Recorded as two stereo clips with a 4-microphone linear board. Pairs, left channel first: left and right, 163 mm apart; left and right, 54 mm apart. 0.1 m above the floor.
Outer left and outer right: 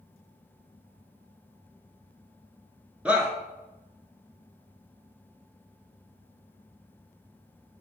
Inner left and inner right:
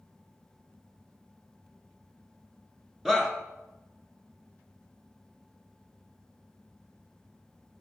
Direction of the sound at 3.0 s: 10° right (ahead or behind).